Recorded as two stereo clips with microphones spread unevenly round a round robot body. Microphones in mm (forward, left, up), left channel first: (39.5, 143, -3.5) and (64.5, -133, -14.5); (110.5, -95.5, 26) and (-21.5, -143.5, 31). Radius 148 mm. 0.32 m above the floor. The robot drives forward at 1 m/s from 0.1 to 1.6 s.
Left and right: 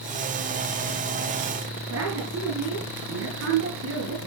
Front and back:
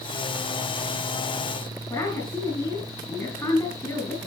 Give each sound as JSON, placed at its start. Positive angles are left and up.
{"t": 1.9, "sound": "a woman speaking", "azimuth_deg": -45, "distance_m": 5.0}